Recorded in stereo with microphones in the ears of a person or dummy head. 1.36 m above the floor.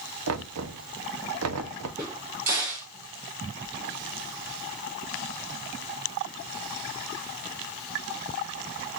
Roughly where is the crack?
Centre.